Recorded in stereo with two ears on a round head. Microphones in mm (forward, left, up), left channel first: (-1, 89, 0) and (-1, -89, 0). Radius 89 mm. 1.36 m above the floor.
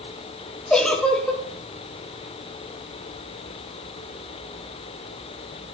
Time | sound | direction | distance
0.7 | a giggle | 5° left (ahead or behind) | 1.0 m